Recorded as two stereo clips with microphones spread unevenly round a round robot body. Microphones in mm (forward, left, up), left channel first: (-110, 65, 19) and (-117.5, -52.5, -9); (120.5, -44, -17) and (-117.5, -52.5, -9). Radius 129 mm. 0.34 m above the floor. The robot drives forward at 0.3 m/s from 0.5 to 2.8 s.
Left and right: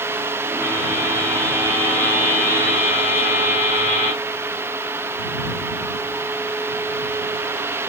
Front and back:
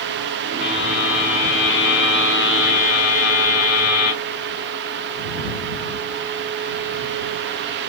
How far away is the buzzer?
About 1.4 m.